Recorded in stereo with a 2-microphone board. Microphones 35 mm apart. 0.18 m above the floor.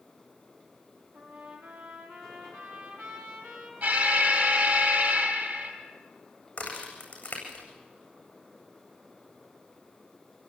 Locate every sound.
1.1 s a trumpet: 60° right (ahead or behind), 6.5 m
3.8 s an alarm: 65° right (ahead or behind), 5 m
6.6 s a crack: 40° left (ahead or behind), 8.5 m